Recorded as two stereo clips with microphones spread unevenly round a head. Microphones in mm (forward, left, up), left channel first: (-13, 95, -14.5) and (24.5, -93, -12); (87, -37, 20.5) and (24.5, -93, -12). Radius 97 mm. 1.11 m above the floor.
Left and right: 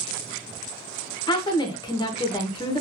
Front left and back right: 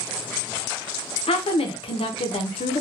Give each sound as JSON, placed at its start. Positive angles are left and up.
{"t": 1.3, "sound": "a woman speaking", "azimuth_deg": 30, "distance_m": 0.6}